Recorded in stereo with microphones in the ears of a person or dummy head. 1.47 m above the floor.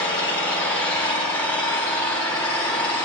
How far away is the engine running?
About 3 m.